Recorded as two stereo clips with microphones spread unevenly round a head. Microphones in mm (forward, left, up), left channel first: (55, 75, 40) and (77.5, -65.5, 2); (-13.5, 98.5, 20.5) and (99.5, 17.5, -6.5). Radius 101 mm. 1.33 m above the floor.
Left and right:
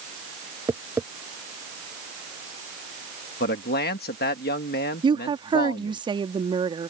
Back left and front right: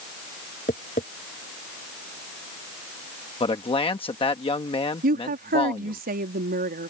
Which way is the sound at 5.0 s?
20° right.